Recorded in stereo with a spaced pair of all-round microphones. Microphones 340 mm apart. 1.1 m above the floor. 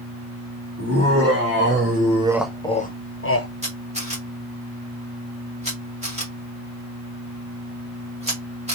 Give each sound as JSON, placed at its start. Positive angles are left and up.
{"t": 0.8, "sound": "laughter", "side_deg": -40, "distance_m": 1.6}
{"t": 3.6, "sound": "a camera shutter", "side_deg": -20, "distance_m": 1.9}